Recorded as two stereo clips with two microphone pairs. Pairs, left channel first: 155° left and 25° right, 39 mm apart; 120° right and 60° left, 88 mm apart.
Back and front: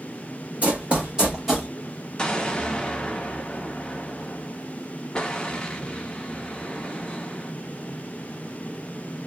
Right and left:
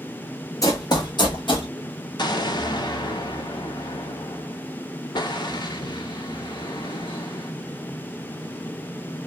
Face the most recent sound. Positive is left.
turn(degrees=-135)